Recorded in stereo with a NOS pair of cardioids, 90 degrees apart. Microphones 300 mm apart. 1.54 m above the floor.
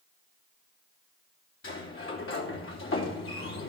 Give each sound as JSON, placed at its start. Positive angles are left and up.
{"t": 1.6, "sound": "a sliding door", "azimuth_deg": 45, "distance_m": 3.0}